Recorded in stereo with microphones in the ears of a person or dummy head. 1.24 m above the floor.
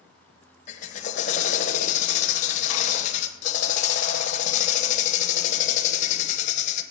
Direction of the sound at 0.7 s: 40° left (ahead or behind).